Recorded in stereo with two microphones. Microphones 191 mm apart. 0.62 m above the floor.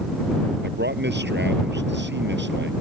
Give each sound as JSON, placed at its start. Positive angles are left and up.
{"t": 0.6, "sound": "a man speaking", "side_deg": -65}